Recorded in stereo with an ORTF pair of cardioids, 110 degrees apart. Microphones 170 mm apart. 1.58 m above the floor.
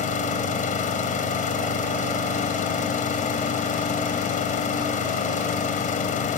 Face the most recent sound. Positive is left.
turn(degrees=55)